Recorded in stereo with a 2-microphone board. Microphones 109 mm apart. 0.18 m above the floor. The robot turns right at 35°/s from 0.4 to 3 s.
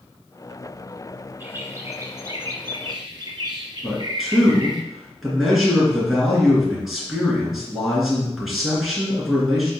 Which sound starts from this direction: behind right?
A bird, at 1.4 s.